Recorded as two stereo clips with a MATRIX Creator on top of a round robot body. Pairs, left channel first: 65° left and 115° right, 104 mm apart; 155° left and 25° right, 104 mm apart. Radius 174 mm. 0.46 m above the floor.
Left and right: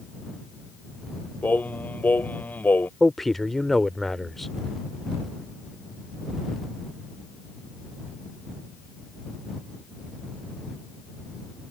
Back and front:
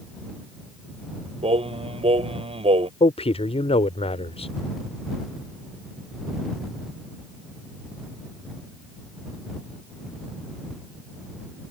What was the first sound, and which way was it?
Singing, 5° right.